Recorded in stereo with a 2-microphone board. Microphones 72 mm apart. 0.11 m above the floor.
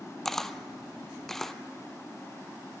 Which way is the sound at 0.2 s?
5° left (ahead or behind).